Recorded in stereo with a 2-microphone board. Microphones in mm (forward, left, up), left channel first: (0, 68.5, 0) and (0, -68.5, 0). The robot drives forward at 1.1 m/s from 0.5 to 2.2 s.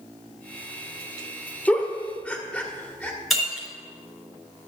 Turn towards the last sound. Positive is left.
turn(degrees=0)  # may be behind; listen again after turning